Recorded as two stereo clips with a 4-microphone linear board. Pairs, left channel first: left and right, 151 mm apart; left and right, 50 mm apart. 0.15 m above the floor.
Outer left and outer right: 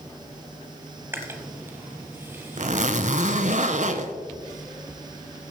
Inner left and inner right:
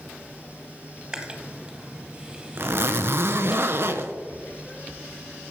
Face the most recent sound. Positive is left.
turn(degrees=-55)  # may be behind; listen again after turning